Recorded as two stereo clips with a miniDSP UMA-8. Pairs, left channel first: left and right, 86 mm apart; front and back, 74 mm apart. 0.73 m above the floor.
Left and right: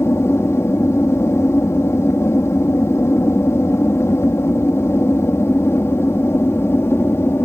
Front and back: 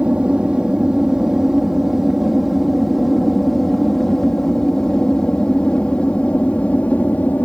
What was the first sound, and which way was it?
An aircraft, 115° left.